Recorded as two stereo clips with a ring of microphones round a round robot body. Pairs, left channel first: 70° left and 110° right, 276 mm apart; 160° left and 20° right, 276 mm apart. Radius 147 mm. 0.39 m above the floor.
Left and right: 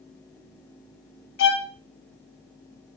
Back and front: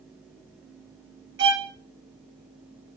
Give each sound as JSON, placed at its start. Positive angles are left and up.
{"t": 1.4, "sound": "a violin", "azimuth_deg": 25, "distance_m": 1.6}